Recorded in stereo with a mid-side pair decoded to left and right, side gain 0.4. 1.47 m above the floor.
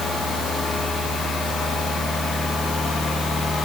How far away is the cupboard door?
No cupboard door in this recording.